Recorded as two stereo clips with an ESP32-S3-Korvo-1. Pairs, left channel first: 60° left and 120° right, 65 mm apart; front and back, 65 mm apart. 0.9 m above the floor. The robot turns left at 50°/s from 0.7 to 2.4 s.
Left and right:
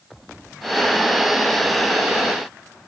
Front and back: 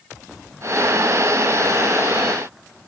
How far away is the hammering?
No hammering in this recording.